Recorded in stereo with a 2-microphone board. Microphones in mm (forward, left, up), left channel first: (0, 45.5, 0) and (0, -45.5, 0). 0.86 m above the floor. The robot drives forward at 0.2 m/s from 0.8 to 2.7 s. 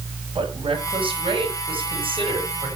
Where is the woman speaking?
75° right (ahead or behind), 6.5 m.